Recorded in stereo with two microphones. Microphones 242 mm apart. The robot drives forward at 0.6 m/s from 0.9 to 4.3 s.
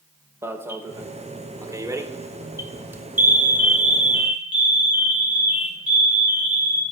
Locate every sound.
0.4 s an alarm: 10° right (ahead or behind), 0.9 m; by 6.8 s 5° right (ahead or behind), 1.7 m